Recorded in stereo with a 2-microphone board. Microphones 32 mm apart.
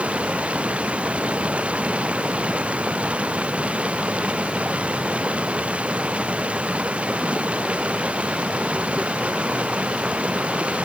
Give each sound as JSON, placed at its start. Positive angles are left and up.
{"t": 0.0, "sound": "running water", "side_deg": -40}